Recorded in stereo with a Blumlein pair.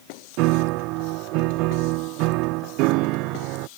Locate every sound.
0.4 s a piano: 40° right